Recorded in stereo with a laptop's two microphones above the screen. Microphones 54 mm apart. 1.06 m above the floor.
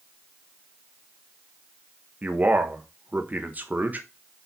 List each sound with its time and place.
2.2 s a man speaking: 35° right (ahead or behind), 1.2 m